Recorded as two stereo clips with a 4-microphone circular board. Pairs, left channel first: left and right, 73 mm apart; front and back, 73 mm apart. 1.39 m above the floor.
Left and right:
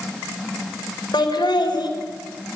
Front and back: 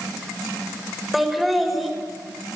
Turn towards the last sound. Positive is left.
turn(degrees=90)